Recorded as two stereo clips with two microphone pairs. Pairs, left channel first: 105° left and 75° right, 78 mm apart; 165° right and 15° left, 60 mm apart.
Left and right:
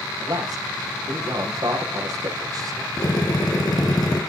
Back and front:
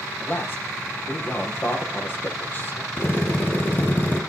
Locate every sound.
0.2 s a man speaking: 110° right, 6 m
3.0 s a drill: 140° left, 5 m